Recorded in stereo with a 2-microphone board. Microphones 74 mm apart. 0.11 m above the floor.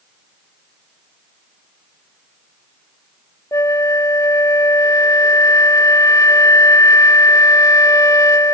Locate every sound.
3.5 s a flute: 45° left (ahead or behind)